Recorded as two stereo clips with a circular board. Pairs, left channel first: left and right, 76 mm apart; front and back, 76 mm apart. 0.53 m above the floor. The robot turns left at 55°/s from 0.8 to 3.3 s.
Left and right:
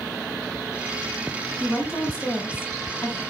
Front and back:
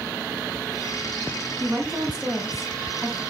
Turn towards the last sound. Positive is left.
turn(degrees=45)